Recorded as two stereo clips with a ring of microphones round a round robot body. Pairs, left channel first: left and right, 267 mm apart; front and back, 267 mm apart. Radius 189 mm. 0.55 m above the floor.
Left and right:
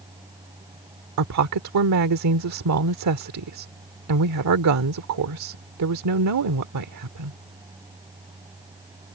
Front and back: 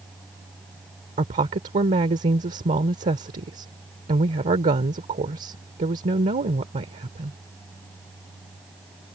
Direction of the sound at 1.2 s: 115° right.